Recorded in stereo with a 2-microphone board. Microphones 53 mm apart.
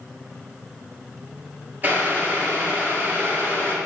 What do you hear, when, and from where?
1.8 s boiling: 35° right (ahead or behind), 2 m